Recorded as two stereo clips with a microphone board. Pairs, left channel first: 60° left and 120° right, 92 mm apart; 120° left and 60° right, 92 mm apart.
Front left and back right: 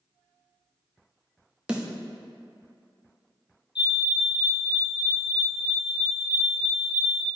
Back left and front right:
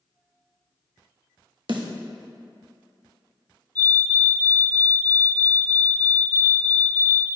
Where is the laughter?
I don't hear laughter.